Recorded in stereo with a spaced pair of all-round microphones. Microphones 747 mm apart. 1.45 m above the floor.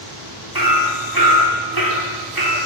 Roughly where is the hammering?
Right.